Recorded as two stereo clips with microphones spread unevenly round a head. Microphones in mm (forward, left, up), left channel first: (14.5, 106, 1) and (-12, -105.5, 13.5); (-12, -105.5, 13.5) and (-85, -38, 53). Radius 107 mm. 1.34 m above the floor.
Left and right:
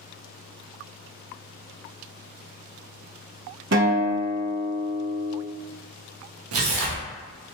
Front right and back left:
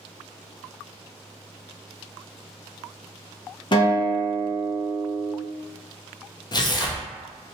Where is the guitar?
95° right, 0.9 m.